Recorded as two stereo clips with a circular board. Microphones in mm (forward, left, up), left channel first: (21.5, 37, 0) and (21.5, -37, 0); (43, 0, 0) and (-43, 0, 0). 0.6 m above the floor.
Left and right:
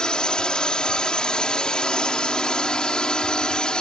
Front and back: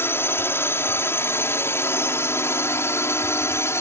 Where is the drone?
20° left.